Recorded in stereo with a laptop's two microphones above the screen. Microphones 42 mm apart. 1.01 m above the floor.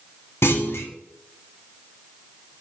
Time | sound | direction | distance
0.4 | a clunk | 80° left | 1.2 m